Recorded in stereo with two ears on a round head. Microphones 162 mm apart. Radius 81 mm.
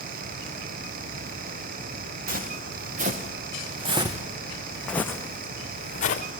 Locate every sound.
2.3 s footsteps: 55° right (ahead or behind), 3.5 m; by 6.2 s 50° left (ahead or behind), 2 m